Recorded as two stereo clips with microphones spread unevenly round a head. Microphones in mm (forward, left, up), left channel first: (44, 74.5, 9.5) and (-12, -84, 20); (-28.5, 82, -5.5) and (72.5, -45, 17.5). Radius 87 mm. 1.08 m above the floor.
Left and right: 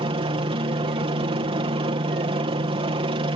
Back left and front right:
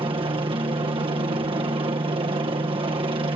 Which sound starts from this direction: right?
A helicopter, at 0.0 s.